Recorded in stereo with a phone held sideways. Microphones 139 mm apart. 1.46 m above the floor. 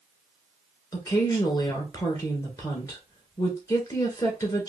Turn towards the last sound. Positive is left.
turn(degrees=25)  # may be behind; listen again after turning